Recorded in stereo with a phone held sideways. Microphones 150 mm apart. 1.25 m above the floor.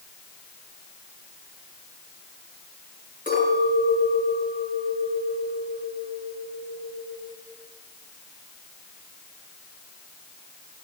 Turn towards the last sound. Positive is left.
turn(degrees=60)  # may be behind; listen again after turning